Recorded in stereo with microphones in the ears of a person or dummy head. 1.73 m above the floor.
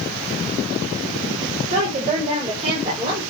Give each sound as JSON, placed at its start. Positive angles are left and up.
{"t": 1.7, "sound": "a woman speaking", "side_deg": -40, "distance_m": 5.5}